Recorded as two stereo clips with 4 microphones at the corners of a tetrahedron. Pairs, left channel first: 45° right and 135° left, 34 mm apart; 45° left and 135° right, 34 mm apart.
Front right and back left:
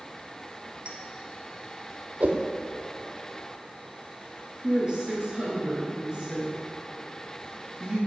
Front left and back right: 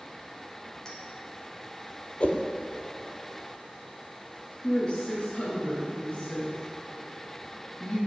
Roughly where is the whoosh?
Left.